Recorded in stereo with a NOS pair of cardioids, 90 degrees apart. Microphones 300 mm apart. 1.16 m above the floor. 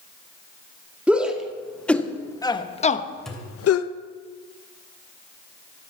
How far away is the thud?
About 3 m.